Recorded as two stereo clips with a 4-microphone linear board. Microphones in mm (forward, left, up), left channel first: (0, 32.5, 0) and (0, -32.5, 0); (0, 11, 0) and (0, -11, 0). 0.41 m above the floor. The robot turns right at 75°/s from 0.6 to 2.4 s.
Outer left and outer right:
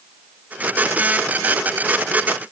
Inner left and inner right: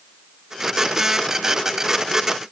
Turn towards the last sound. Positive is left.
No sound to turn to.